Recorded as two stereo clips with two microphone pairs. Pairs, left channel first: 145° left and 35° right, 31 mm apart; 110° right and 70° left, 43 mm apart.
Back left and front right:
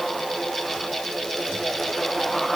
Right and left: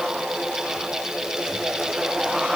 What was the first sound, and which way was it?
Only background noise.